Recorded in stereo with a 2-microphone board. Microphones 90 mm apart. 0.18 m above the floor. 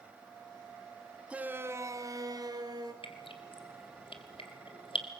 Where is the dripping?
80° left, 1.7 m.